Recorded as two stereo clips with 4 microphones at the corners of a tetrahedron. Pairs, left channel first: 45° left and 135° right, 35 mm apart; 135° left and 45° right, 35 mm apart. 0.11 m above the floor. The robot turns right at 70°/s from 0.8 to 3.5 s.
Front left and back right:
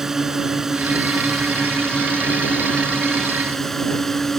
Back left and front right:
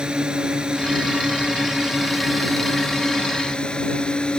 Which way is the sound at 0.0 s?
70° right.